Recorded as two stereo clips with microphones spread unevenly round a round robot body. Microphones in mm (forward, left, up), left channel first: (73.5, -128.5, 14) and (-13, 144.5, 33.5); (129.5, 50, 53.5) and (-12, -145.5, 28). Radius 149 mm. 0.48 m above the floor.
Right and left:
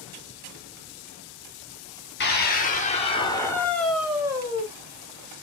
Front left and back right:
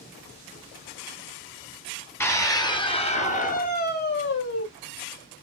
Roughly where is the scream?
Ahead right.